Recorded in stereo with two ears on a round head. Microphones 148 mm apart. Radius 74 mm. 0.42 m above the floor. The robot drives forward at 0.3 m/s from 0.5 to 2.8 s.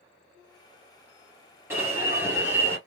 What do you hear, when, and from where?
1.7 s an alarm: 15° right (ahead or behind), 2 m